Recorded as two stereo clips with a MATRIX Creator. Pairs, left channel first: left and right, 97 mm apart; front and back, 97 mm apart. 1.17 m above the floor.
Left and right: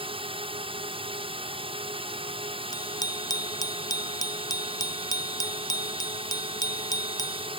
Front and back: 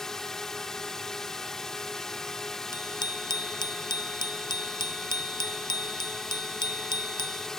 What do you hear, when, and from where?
0.0 s a drone: 85° right
2.7 s a bicycle bell: 40° left